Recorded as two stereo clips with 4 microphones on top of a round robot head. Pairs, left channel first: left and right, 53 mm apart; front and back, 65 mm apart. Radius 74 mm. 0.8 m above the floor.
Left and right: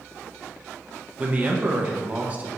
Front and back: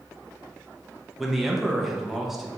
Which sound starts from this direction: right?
A man speaking, at 1.2 s.